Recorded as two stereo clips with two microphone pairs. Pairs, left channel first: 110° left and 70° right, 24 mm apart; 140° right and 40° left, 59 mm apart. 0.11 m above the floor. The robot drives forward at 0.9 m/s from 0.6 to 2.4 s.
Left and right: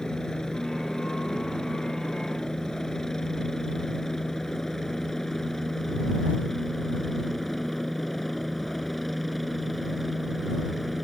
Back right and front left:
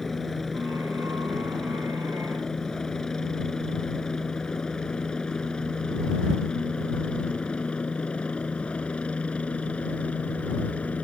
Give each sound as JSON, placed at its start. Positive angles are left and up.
{"t": 0.0, "sound": "a helicopter", "azimuth_deg": 140}